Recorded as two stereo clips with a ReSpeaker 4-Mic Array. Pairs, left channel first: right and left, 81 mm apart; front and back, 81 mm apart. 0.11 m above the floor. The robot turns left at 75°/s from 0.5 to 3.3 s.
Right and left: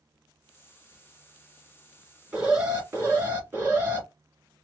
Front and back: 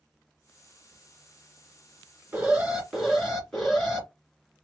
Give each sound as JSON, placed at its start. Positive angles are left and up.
{"t": 2.3, "sound": "an alarm", "azimuth_deg": 135, "distance_m": 1.9}